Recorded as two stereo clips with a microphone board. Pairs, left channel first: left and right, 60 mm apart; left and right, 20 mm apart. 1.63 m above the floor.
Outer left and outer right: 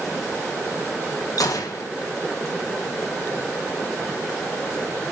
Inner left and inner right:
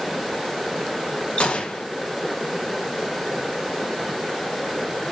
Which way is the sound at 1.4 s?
70° left (ahead or behind).